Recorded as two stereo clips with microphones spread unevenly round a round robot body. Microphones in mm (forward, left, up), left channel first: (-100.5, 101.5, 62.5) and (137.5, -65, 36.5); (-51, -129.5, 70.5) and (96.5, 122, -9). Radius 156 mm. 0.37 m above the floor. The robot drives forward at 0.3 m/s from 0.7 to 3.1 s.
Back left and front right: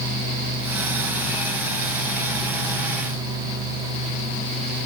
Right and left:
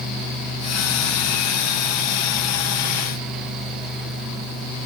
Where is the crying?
No crying in this recording.